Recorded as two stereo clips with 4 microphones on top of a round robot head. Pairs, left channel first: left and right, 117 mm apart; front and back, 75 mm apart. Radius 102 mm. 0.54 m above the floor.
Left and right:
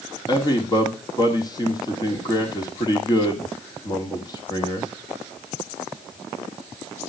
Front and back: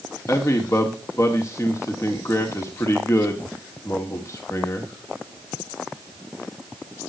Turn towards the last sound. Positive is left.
turn(degrees=45)